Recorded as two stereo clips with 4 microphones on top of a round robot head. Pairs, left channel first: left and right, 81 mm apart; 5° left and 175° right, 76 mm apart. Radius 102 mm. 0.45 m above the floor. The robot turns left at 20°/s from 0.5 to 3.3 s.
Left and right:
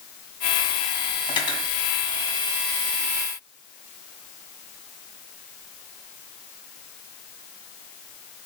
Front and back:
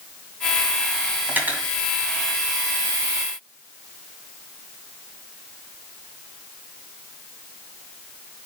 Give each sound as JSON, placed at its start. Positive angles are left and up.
{"t": 1.3, "sound": "cutlery clinking", "azimuth_deg": 120, "distance_m": 2.5}